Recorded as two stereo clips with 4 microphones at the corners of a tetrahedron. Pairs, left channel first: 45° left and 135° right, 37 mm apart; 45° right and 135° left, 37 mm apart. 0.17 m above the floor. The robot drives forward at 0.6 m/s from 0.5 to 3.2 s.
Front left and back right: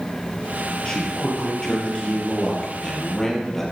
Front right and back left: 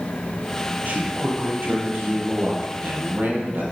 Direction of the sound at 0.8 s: 105° left.